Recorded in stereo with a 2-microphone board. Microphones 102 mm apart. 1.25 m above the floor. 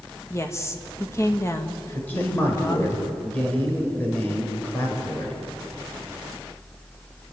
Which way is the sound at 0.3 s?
25° left (ahead or behind).